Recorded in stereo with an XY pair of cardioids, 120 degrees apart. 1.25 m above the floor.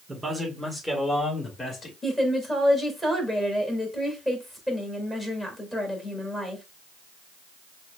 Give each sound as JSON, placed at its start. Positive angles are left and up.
{"t": 0.1, "sound": "a man speaking", "azimuth_deg": -20, "distance_m": 1.5}
{"t": 2.0, "sound": "a woman speaking", "azimuth_deg": 10, "distance_m": 2.0}